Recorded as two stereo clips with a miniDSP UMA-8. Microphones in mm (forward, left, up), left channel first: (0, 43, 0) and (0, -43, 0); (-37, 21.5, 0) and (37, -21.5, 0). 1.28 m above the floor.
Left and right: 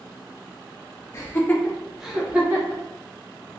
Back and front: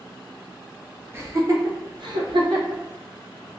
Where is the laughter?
35° left, 0.7 m; by 2.8 s 25° right, 1.0 m.